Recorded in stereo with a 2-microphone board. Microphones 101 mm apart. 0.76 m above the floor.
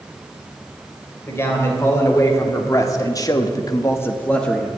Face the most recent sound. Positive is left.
turn(degrees=5)  # may be behind; listen again after turning